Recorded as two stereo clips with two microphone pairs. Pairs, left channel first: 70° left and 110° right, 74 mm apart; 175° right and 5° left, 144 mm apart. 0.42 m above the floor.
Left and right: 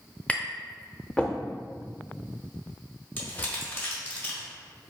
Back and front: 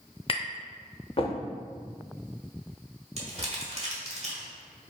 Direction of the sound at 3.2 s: 15° left.